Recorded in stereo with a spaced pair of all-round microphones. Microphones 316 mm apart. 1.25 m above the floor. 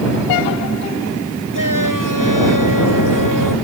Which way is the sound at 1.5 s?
75° left (ahead or behind).